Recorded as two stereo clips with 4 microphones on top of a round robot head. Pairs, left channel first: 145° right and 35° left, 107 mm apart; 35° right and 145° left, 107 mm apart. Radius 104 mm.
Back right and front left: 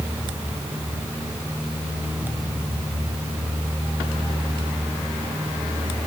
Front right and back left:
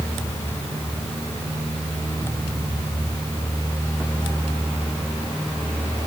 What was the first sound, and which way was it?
Only background noise.